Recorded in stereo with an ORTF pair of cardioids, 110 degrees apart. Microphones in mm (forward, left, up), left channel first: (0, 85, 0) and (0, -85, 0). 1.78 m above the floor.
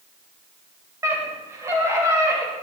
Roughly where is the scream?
Ahead.